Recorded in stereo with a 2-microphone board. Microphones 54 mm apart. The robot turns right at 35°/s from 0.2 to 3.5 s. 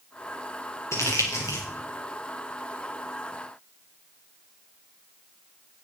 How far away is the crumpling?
About 5.5 m.